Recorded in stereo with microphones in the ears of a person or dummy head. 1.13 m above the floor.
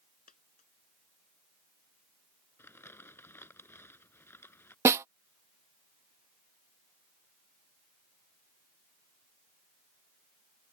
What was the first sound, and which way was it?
A dropped coin, 45° left (ahead or behind).